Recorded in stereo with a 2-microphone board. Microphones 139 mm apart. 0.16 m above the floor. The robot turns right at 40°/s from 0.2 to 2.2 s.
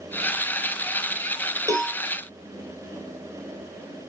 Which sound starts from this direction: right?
A cowbell, at 1.7 s.